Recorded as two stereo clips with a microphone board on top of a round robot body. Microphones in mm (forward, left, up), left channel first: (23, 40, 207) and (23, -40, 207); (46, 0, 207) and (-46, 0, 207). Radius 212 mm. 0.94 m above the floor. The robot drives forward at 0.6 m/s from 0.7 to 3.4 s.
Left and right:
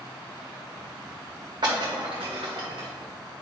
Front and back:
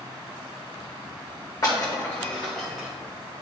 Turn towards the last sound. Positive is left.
turn(degrees=-115)